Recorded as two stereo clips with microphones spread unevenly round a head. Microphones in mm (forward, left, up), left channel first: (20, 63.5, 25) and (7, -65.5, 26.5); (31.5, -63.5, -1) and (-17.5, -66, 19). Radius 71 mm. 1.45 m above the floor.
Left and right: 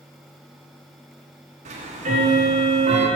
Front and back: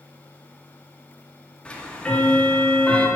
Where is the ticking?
60° right, 1.5 m.